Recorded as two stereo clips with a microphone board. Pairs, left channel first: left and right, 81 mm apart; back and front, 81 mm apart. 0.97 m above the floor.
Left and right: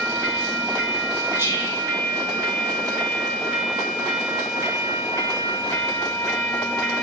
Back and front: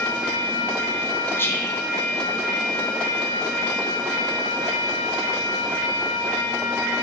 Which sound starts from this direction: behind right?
Whispering, at 1.4 s.